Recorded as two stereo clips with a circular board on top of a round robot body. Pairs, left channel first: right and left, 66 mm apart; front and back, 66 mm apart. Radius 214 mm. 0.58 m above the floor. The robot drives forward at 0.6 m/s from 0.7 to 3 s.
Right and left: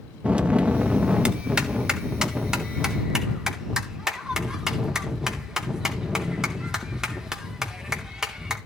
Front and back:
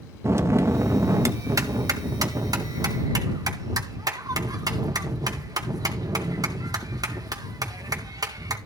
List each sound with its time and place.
0.2 s a bell: 155° left, 1.4 m; by 8.6 s 170° left, 2.5 m